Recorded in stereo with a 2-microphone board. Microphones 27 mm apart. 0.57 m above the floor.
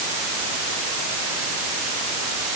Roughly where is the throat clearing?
I don't hear throat clearing.